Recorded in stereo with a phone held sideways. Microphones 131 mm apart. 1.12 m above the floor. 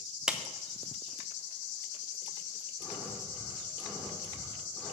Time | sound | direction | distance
0.3 | a clap | 5° right (ahead or behind) | 0.7 m
2.8 | breathing | 5° left (ahead or behind) | 2.5 m